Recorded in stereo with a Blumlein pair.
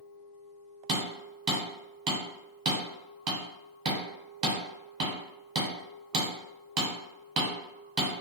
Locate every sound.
0.9 s hammering: 35° right, 1.1 m